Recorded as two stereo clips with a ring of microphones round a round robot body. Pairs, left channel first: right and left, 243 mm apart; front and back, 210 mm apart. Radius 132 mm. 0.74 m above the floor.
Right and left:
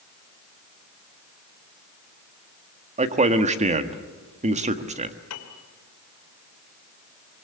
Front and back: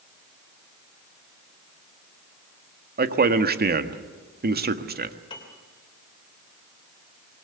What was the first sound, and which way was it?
A man speaking, 150° left.